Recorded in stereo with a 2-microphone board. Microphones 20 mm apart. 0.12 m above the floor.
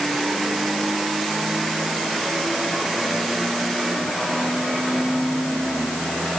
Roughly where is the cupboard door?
I don't hear a cupboard door.